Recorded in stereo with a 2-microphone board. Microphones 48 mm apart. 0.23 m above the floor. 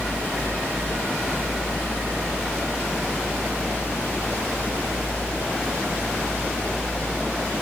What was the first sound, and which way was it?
Only background noise.